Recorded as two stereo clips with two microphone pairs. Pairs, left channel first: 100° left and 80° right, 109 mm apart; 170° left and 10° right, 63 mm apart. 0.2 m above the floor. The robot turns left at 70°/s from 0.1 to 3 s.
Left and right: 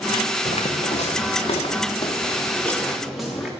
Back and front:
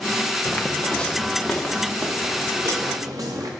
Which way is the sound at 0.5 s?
110° left.